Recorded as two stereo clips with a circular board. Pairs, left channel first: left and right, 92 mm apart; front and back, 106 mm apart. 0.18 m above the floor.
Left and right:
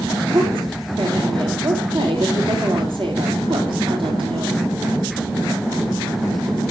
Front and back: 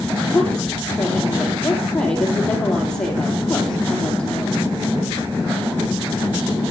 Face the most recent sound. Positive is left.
turn(degrees=-80)